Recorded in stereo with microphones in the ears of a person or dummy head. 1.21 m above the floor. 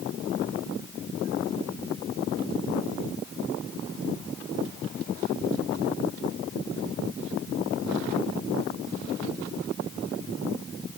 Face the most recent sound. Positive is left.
No sound to turn to.